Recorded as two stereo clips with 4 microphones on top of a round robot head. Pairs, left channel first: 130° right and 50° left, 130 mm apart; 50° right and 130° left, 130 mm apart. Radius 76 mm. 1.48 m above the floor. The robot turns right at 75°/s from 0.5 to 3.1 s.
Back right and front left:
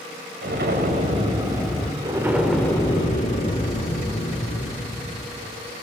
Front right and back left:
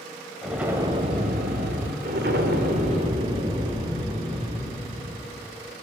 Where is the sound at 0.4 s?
45° left, 2.5 m; by 1.9 s 150° left, 2.5 m.